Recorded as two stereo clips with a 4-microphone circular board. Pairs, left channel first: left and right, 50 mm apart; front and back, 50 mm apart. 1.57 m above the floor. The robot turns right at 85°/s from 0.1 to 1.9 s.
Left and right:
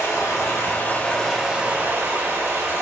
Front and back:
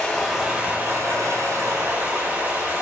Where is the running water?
75° left, 3.5 m; by 2.8 s 130° right, 3.5 m.